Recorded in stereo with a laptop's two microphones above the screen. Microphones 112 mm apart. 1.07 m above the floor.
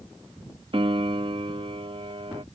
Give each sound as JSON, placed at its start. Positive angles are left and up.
{"t": 0.7, "sound": "a piano", "side_deg": -50}